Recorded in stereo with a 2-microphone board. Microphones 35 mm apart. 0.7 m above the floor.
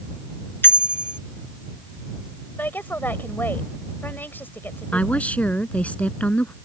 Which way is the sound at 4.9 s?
40° left (ahead or behind).